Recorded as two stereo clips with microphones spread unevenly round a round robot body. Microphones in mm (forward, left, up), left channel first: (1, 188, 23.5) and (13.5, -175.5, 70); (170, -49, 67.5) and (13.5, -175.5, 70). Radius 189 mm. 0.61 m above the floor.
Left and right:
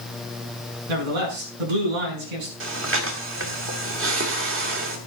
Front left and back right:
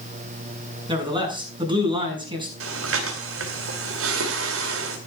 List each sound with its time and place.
0.9 s a man speaking: 70° right, 7 m
2.6 s breathing: 150° right, 2.5 m